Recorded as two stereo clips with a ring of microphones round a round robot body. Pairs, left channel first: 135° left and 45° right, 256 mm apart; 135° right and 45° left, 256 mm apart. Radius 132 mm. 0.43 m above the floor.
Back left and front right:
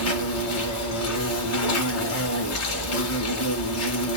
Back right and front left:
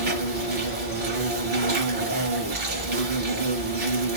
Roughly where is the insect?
Left.